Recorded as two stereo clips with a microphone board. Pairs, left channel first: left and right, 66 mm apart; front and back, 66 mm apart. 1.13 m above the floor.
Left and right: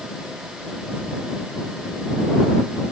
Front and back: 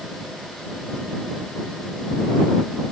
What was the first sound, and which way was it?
Only background noise.